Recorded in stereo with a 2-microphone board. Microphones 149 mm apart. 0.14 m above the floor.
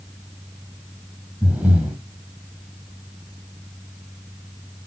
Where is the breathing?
10° right (ahead or behind), 1.8 m.